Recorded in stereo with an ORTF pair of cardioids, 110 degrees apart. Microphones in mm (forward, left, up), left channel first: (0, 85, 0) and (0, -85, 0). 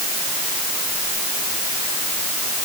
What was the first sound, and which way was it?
Only background noise.